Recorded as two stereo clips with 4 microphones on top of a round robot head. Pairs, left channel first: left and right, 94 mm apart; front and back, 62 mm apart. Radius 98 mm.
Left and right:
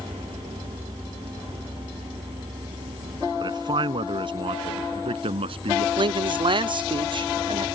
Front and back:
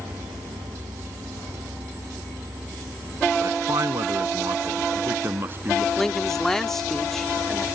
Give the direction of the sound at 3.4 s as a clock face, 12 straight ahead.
5 o'clock.